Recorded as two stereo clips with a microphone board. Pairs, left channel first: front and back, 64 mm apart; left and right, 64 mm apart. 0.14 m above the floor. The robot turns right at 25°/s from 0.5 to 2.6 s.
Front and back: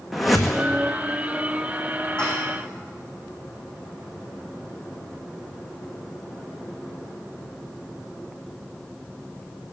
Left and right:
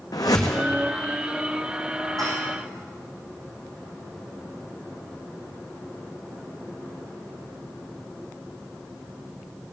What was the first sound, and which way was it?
A whoosh, 90° left.